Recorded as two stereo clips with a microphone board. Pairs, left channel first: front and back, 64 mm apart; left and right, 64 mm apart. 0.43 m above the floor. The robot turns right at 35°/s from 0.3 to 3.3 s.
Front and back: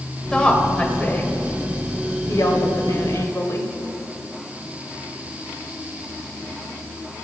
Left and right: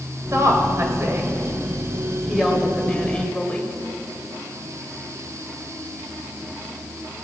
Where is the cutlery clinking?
I don't hear cutlery clinking.